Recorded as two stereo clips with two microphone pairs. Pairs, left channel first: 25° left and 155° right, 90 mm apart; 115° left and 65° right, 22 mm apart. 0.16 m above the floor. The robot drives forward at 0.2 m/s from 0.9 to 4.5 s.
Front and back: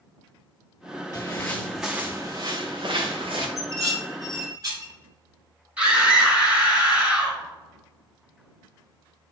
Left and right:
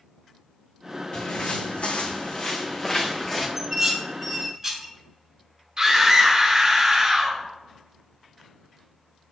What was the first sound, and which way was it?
Footsteps, 75° left.